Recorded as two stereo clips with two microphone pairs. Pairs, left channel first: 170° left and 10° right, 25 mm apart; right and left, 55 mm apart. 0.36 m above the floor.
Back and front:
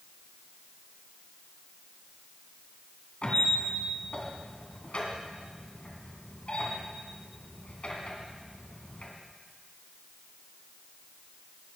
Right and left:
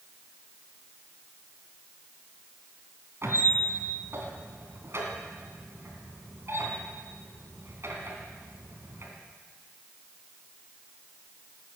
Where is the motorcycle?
No motorcycle in this recording.